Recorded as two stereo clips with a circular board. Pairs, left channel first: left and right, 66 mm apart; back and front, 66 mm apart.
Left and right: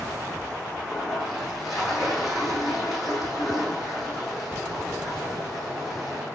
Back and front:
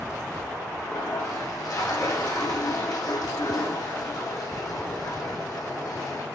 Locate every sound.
0.8 s a toilet flushing: straight behind, 5 m